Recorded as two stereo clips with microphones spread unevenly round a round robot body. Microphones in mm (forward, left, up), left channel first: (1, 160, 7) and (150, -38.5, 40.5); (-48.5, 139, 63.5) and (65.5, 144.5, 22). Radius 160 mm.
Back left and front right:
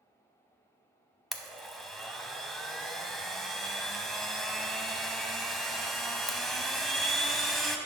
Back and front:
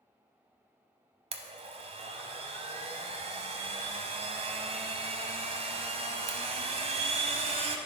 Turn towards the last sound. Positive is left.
turn(degrees=25)